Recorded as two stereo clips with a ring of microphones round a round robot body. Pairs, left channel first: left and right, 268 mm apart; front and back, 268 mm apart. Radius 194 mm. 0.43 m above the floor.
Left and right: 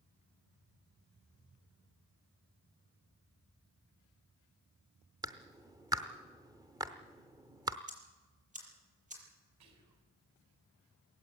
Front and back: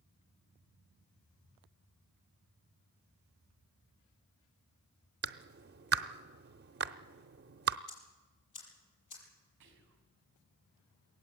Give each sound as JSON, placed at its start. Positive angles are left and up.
{"t": 5.2, "sound": "a clap", "azimuth_deg": -160, "distance_m": 0.7}
{"t": 7.9, "sound": "ticking", "azimuth_deg": -25, "distance_m": 6.5}
{"t": 9.6, "sound": "whispering", "azimuth_deg": -125, "distance_m": 4.0}